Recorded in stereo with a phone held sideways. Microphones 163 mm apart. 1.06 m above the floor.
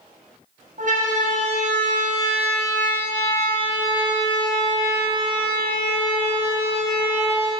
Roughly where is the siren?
Right.